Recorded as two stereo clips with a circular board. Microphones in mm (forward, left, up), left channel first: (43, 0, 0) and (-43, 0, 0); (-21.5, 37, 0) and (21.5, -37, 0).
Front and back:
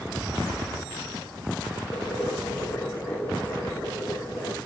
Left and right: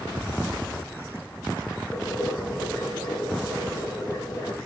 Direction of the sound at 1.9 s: 70° left.